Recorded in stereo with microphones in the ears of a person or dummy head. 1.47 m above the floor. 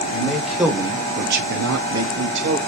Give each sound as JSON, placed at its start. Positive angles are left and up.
{"t": 0.1, "sound": "a man speaking", "side_deg": 15, "distance_m": 1.9}